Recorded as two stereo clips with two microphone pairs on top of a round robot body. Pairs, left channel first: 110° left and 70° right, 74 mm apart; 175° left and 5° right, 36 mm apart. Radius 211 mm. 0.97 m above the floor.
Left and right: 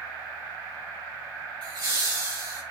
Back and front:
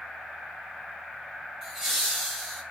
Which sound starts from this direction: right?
Laughter, at 1.6 s.